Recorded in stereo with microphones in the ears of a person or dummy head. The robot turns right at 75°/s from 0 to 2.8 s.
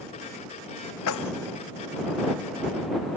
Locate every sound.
1.1 s keys jangling: 75° left (ahead or behind); by 1.3 s 55° left (ahead or behind)